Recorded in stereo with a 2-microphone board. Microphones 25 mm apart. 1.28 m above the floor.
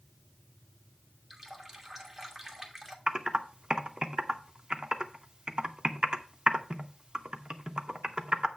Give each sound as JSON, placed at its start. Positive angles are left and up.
{"t": 1.3, "sound": "a running tap", "side_deg": -15, "distance_m": 1.5}
{"t": 3.1, "sound": "typing on a keyboard", "side_deg": -35, "distance_m": 0.9}